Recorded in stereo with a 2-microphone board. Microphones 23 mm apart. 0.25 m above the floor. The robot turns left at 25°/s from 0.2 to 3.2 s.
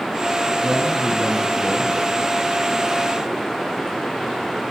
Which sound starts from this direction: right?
A man speaking, at 0.6 s.